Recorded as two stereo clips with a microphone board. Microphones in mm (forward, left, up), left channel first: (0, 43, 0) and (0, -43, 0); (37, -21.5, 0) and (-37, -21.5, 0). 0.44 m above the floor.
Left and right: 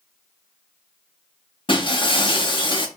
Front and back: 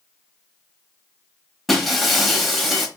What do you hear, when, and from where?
1.7 s breaking glass: 90° left, 1.1 m